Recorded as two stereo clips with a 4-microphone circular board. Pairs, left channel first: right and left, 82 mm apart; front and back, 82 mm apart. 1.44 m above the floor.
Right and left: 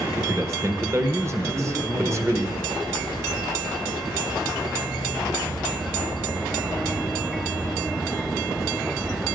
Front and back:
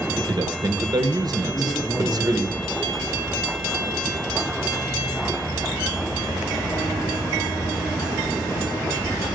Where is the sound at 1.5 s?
85° left, 4 m.